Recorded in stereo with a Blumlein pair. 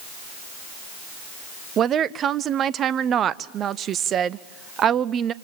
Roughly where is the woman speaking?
Ahead right.